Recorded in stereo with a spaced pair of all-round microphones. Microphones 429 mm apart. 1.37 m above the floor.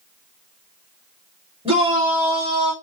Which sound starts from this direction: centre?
A shout, at 1.6 s.